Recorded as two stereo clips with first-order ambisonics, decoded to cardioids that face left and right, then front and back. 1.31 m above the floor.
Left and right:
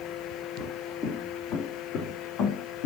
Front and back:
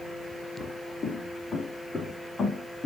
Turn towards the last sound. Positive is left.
turn(degrees=80)